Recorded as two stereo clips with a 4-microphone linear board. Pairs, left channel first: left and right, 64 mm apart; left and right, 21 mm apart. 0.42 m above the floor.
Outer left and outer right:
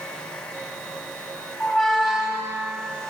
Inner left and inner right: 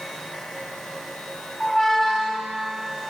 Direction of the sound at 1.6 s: Centre (ahead or behind).